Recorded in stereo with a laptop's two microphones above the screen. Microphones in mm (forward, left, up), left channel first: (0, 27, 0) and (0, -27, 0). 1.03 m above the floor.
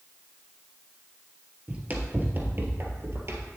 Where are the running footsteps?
25° right (ahead or behind), 1.4 m; by 3.5 s 50° right (ahead or behind), 1.5 m.